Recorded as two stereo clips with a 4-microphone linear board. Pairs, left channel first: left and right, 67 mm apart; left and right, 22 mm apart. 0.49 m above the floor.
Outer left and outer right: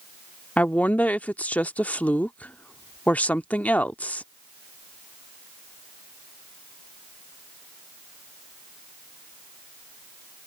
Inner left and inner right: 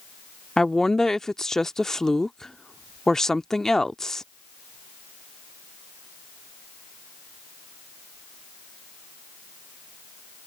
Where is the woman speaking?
25° left (ahead or behind).